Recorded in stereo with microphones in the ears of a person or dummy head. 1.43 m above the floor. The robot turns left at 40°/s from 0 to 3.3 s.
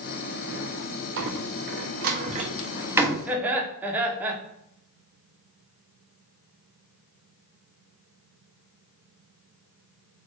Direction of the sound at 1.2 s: 65° right (ahead or behind).